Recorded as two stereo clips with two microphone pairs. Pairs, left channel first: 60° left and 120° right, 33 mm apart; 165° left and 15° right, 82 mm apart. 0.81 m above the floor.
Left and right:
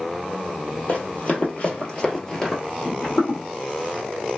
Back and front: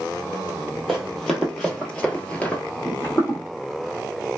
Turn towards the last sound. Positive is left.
turn(degrees=110)